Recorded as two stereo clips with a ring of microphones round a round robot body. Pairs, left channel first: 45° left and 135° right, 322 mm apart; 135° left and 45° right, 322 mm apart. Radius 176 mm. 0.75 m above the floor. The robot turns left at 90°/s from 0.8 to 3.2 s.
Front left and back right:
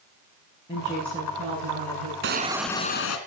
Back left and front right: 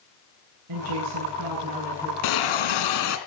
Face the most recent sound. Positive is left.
turn(degrees=85)